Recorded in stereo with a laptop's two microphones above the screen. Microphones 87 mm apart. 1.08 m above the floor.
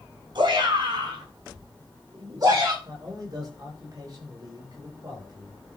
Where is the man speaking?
50° right (ahead or behind), 4.5 m.